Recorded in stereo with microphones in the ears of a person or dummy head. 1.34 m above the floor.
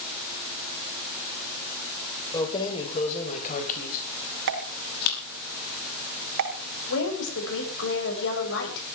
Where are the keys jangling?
20° left (ahead or behind), 3 m; by 5.2 s 55° left (ahead or behind), 6.5 m.